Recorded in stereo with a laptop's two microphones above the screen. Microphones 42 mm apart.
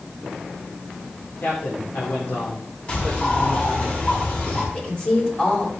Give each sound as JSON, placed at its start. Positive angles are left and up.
{"t": 1.4, "sound": "a man speaking", "side_deg": 80, "distance_m": 3.0}
{"t": 2.9, "sound": "a bird", "side_deg": 30, "distance_m": 4.5}
{"t": 4.7, "sound": "a woman speaking", "side_deg": 35, "distance_m": 6.0}